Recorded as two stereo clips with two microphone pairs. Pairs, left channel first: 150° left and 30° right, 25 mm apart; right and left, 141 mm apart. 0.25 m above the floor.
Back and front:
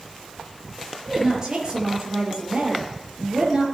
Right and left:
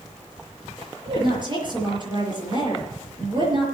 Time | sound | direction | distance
1.1 | a woman speaking | 35° left | 5.5 m